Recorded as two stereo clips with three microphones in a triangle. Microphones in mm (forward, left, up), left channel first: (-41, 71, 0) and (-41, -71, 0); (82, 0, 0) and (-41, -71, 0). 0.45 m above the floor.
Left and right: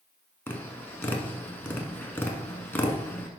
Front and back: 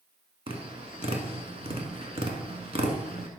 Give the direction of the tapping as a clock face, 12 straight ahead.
6 o'clock.